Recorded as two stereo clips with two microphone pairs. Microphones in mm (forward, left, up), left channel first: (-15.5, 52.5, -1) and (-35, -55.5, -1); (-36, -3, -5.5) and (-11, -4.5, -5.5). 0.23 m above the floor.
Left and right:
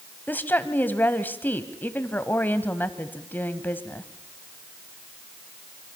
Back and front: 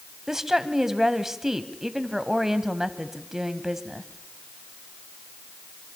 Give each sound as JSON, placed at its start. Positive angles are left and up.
{"t": 0.3, "sound": "a woman speaking", "azimuth_deg": 45, "distance_m": 1.2}